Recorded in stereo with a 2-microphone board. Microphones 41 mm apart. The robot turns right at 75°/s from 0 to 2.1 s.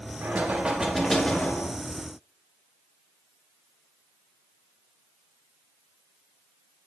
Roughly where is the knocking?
Ahead right.